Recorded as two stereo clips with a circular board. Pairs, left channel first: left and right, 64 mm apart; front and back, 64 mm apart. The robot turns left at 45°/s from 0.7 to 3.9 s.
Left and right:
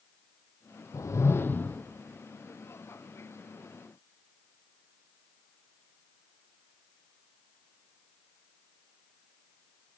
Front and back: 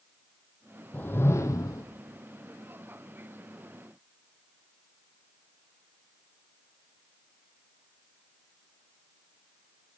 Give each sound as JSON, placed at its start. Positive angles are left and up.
{"t": 0.9, "sound": "a whoosh", "azimuth_deg": 60, "distance_m": 0.9}